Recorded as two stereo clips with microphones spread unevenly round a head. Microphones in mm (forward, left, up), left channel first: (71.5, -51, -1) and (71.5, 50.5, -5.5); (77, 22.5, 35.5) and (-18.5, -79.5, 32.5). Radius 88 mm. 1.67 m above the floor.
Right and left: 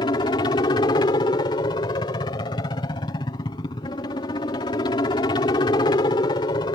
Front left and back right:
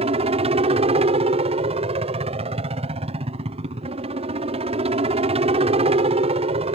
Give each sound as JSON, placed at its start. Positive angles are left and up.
{"t": 0.0, "sound": "a helicopter", "azimuth_deg": -120}